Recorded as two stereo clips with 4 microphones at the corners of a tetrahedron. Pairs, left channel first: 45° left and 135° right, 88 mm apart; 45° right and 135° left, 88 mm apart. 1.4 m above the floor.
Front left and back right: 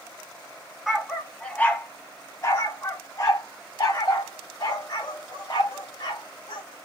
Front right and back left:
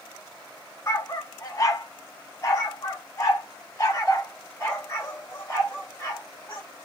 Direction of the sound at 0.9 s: 50° right.